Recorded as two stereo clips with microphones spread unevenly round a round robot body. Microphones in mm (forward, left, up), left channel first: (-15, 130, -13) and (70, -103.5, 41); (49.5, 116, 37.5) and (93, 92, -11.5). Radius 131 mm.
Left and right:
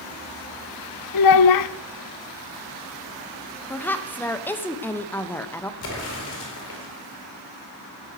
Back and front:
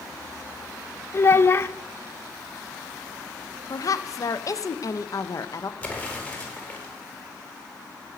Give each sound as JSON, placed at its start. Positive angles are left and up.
{"t": 1.1, "sound": "a child speaking", "azimuth_deg": 125, "distance_m": 0.6}
{"t": 3.7, "sound": "a woman speaking", "azimuth_deg": 85, "distance_m": 0.8}
{"t": 5.8, "sound": "an explosion", "azimuth_deg": 75, "distance_m": 4.5}